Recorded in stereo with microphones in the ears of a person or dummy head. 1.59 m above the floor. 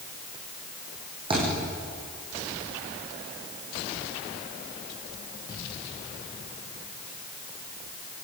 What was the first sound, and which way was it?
A thud, 30° right (ahead or behind).